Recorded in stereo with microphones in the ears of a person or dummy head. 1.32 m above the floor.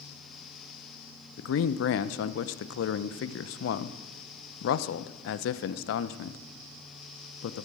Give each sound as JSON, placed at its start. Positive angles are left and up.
{"t": 1.4, "sound": "a man speaking", "side_deg": 85, "distance_m": 0.7}